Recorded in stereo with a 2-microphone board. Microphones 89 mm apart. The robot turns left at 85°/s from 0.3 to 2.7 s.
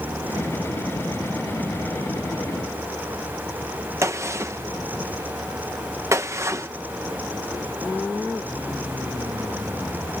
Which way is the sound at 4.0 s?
30° right (ahead or behind).